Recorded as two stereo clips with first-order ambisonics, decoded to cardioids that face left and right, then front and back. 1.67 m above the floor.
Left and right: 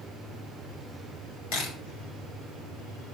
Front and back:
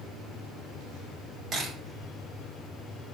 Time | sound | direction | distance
1.5 | a camera shutter | 110° left | 5.5 m